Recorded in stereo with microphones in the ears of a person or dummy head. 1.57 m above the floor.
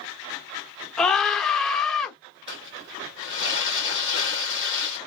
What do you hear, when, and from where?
1.0 s a scream: centre (ahead or behind), 0.9 m
2.5 s crumpling: 20° right (ahead or behind), 1.1 m